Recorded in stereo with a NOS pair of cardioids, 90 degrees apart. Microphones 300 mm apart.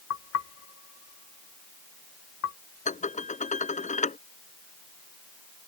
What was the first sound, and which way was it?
Knocking, 60° left.